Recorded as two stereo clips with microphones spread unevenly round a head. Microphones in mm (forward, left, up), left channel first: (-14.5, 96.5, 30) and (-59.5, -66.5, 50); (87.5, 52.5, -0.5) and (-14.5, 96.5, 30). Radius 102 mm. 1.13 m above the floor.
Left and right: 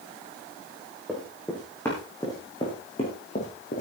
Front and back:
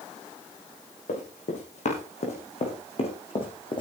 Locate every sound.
1.1 s running footsteps: 15° right, 6 m; by 3.8 s 25° left, 4.5 m